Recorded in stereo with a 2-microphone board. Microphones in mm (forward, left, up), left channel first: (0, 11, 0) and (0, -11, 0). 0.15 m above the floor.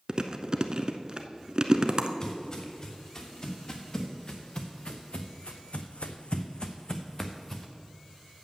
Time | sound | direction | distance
0.1 | chewing | 45° right (ahead or behind) | 0.6 m
2.2 | footsteps | 30° left (ahead or behind) | 2.5 m